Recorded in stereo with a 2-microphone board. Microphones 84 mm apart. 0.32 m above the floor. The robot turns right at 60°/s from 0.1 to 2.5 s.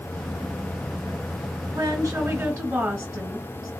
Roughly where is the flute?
No flute in this recording.